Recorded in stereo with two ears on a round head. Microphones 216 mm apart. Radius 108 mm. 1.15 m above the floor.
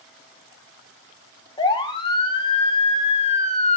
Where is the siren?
20° left (ahead or behind), 2.5 m; by 3.8 s 30° left (ahead or behind), 1.3 m.